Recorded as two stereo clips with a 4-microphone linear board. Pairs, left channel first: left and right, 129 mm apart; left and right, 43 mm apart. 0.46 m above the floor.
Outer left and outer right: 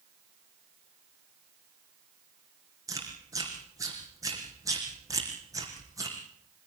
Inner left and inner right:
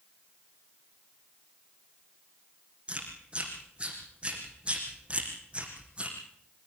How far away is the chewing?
About 5 m.